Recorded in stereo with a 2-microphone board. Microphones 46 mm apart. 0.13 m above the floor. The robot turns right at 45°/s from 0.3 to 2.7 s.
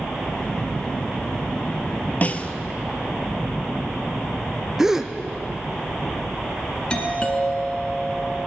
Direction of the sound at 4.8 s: 10° right (ahead or behind).